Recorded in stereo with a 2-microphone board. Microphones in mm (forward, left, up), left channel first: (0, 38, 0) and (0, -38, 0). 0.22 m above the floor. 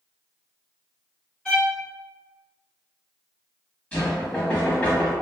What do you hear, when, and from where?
1.4 s a violin: 10° left (ahead or behind), 1.5 m
3.9 s knocking: 15° left (ahead or behind), 1.1 m